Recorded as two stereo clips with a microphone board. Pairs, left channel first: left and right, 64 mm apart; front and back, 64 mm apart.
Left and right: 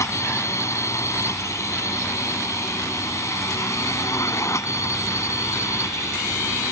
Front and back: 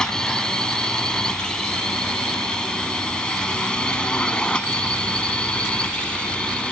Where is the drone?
80° left; by 6.7 s 70° left.